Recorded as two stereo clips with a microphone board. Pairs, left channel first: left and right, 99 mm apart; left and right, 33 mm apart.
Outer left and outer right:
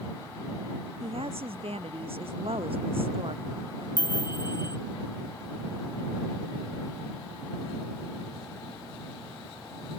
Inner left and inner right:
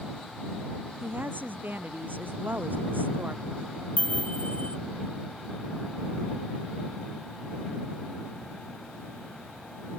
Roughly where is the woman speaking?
Right.